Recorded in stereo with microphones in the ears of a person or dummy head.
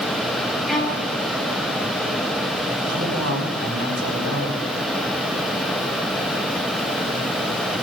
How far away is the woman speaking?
About 6.5 m.